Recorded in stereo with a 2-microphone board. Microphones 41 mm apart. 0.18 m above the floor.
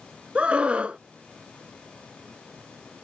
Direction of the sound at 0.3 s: 25° right (ahead or behind).